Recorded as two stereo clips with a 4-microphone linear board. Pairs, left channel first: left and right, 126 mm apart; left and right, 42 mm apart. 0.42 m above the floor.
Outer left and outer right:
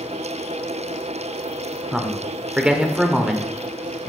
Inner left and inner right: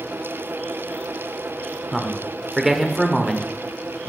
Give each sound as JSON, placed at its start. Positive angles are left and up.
{"t": 1.9, "sound": "a man speaking", "side_deg": -5, "distance_m": 0.9}